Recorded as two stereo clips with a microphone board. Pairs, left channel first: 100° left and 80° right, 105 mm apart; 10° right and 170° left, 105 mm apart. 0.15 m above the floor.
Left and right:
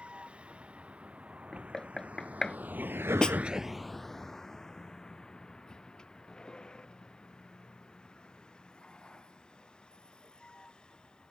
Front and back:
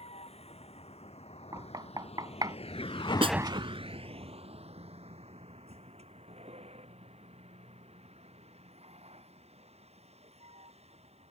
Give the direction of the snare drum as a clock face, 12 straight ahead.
6 o'clock.